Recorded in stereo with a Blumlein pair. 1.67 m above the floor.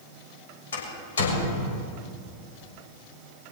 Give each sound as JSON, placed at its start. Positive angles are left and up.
{"t": 0.7, "sound": "a door slam", "azimuth_deg": 65, "distance_m": 7.5}